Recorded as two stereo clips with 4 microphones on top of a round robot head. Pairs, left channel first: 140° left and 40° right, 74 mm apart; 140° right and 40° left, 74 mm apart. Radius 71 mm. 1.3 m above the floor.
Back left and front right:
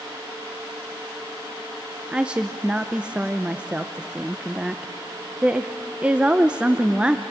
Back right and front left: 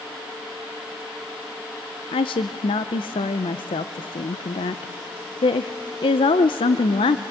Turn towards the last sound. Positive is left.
turn(degrees=-120)